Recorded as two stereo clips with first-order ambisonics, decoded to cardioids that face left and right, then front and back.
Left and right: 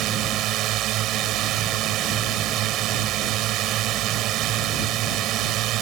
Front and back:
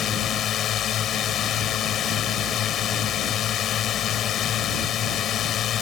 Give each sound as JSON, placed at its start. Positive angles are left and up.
{"t": 0.0, "sound": "a drone", "azimuth_deg": -50}